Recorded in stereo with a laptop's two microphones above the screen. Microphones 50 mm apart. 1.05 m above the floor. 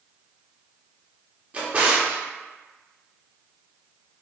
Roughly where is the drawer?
Right.